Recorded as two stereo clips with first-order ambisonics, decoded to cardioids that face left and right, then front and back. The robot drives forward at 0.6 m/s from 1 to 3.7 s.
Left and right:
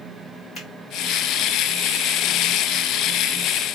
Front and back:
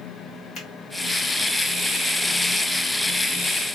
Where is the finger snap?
35° left, 1.9 m.